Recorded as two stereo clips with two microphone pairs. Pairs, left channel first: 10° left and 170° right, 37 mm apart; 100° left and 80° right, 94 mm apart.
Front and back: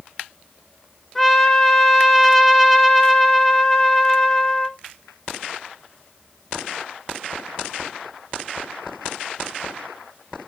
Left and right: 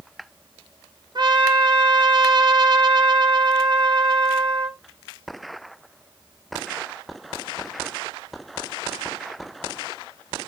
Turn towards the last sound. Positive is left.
turn(degrees=-70)